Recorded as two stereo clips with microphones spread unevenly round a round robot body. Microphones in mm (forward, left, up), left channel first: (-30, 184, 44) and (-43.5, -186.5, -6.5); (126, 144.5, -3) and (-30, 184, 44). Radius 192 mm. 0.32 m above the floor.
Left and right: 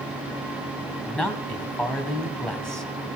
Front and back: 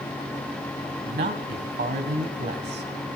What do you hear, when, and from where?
1.1 s a man speaking: straight behind, 2.0 m